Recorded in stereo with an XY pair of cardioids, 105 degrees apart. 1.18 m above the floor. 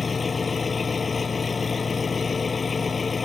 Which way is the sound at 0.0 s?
30° left.